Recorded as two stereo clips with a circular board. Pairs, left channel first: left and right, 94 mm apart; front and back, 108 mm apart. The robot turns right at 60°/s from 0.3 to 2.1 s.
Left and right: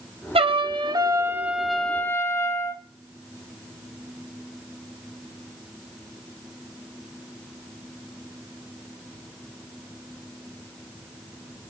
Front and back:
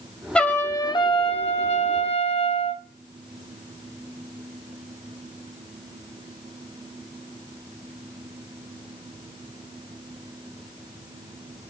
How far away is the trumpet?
About 0.9 m.